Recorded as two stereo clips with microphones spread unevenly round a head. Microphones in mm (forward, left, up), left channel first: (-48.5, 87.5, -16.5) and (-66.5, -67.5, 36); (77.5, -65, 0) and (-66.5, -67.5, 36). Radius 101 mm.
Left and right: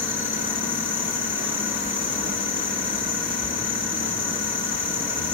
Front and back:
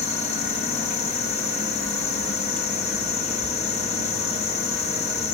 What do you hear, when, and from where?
0.0 s an insect: 20° left, 1.6 m